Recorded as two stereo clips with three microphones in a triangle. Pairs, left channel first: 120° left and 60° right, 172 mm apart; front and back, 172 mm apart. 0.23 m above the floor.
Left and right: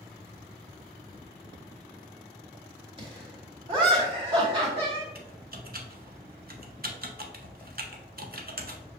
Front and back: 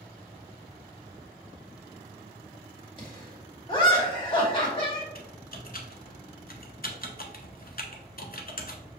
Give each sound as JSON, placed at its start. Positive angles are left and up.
{"t": 3.0, "sound": "laughter", "azimuth_deg": -30, "distance_m": 1.9}
{"t": 5.2, "sound": "typing on a keyboard", "azimuth_deg": -30, "distance_m": 0.8}